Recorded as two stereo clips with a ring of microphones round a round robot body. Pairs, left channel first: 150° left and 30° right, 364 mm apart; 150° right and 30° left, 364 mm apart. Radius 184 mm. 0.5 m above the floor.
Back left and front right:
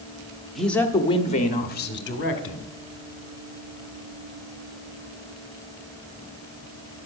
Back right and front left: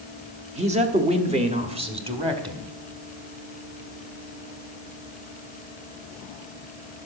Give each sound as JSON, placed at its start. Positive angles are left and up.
{"t": 0.6, "sound": "a man speaking", "azimuth_deg": 60, "distance_m": 1.1}